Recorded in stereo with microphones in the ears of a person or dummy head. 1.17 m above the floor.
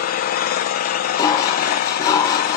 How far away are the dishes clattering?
About 0.7 m.